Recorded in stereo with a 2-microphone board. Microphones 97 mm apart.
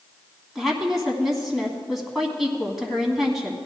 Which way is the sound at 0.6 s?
Centre (ahead or behind).